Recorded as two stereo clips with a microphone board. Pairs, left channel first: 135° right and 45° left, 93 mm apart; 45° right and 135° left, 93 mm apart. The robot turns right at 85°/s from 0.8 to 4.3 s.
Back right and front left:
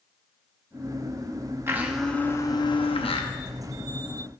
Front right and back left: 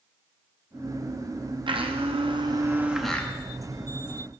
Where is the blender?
105° left, 0.6 m; by 3.3 s 115° right, 0.6 m.